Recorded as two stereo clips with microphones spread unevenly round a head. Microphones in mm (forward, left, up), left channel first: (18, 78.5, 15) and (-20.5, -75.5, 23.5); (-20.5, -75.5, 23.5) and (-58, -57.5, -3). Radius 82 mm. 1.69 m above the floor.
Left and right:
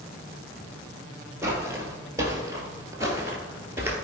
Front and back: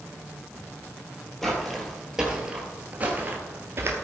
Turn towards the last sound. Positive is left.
turn(degrees=-160)